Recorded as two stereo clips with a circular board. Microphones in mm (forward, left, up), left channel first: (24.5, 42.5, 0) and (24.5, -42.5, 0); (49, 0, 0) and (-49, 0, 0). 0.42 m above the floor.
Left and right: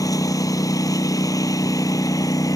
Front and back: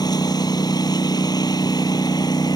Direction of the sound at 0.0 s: 45° left.